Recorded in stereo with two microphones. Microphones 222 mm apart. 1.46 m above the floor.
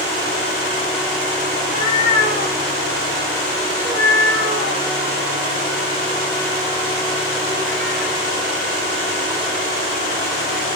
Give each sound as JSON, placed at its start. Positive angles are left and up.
{"t": 1.6, "sound": "a cat meowing", "side_deg": -45, "distance_m": 1.5}